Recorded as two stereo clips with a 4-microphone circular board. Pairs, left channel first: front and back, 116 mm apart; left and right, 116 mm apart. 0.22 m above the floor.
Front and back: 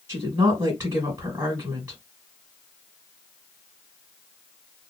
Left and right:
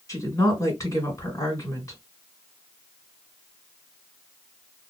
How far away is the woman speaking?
About 1.6 m.